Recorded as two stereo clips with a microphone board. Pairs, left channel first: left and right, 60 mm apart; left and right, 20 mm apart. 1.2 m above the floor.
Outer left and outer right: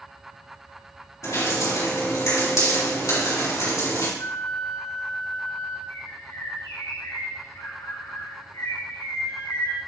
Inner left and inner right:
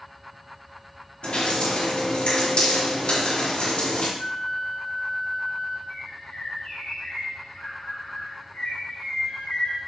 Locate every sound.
1.2 s dripping: 65° left (ahead or behind), 4 m
4.2 s a flute: 70° left (ahead or behind), 1.8 m
5.9 s a bird: 75° left (ahead or behind), 3 m